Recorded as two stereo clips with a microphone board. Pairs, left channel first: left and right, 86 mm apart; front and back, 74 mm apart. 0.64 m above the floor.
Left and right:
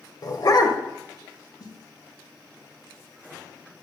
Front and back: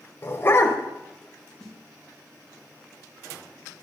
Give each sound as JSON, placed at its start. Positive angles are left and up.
{"t": 0.2, "sound": "a dog barking", "azimuth_deg": 55, "distance_m": 1.0}
{"t": 1.6, "sound": "a snare drum", "azimuth_deg": 80, "distance_m": 1.3}